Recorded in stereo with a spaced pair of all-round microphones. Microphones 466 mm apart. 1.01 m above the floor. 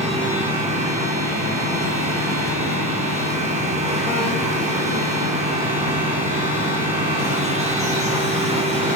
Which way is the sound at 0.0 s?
15° right (ahead or behind).